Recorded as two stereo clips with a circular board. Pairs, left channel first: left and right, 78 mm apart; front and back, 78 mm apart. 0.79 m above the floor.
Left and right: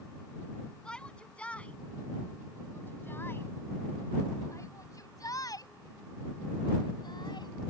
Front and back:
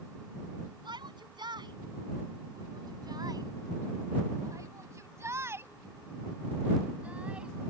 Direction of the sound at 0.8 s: 170° left.